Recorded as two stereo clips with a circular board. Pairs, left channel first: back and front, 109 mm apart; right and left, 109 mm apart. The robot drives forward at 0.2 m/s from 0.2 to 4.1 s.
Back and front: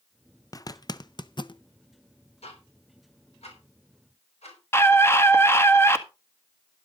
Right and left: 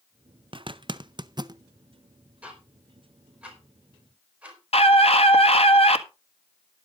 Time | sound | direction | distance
0.5 | a zipper | 125° left | 0.6 m
2.4 | ticking | 165° left | 4 m
4.7 | a scream | 115° right | 1.8 m